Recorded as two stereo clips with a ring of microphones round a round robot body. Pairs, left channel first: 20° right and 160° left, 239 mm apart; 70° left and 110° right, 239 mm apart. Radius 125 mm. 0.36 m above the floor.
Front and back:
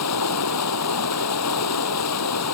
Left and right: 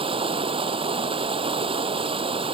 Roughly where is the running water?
Ahead right.